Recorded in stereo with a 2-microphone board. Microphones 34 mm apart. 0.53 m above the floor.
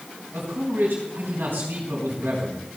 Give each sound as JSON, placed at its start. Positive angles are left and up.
{"t": 0.3, "sound": "a man speaking", "side_deg": -75, "distance_m": 4.0}